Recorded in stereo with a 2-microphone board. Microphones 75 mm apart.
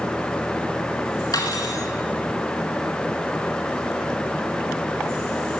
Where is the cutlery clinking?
55° left (ahead or behind), 1.5 m.